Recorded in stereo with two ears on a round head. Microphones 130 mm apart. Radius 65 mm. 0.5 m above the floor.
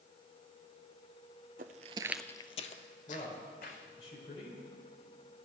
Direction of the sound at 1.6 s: 60° right (ahead or behind).